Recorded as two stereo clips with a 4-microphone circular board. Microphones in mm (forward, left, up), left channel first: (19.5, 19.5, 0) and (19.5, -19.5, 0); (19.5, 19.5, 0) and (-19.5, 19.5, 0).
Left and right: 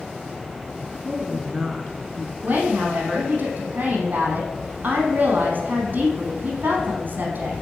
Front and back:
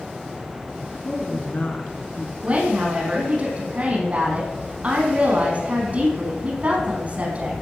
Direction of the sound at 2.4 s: 130° right.